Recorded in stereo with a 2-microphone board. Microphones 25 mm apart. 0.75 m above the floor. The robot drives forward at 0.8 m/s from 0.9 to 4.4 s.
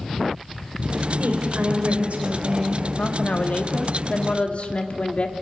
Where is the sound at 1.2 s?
75° right (ahead or behind), 2.5 m; by 2.9 s 55° right (ahead or behind), 3 m.